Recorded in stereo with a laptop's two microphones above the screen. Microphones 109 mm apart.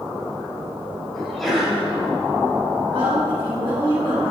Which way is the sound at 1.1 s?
Centre (ahead or behind).